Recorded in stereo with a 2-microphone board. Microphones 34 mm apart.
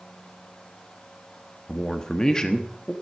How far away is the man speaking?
About 1.2 m.